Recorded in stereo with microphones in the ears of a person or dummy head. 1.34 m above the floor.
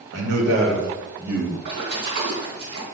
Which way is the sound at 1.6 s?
70° right (ahead or behind).